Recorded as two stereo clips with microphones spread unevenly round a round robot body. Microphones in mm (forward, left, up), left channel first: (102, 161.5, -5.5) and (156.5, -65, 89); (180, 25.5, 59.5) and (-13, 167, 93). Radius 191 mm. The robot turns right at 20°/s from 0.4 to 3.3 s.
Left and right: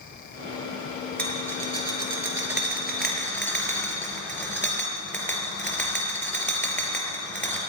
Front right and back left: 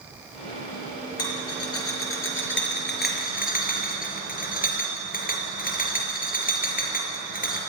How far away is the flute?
No flute in this recording.